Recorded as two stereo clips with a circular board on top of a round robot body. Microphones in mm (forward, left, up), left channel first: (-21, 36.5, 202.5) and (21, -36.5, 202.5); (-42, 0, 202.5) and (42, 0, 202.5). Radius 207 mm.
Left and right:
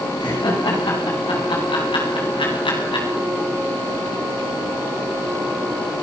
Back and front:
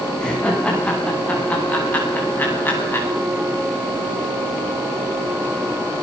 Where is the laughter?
100° left, 9.5 m; by 3.1 s 115° left, 8.5 m.